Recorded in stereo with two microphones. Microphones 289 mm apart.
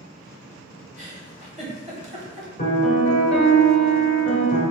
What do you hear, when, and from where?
1.0 s a giggle: 25° right (ahead or behind), 1.1 m
2.6 s a piano: 35° left (ahead or behind), 1.4 m